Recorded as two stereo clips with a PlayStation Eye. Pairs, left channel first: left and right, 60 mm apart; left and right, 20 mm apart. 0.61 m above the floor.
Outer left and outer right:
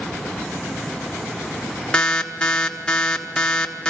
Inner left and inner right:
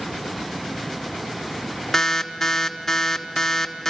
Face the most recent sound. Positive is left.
turn(degrees=15)  # may be behind; listen again after turning